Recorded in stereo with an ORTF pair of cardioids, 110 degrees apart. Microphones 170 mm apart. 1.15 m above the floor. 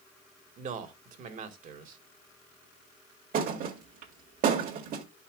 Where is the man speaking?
60° right, 1.9 m.